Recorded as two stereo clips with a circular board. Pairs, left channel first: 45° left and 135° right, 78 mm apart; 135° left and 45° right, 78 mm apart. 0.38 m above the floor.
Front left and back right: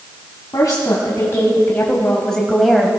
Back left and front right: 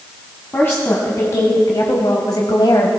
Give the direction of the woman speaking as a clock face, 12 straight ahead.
9 o'clock.